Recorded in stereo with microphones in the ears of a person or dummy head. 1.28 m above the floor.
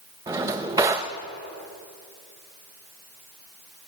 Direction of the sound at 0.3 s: 15° right (ahead or behind).